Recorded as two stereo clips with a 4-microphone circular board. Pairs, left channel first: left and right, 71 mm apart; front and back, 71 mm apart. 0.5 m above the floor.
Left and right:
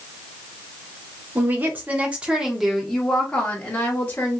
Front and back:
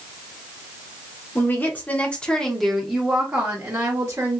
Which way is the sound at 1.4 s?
45° right.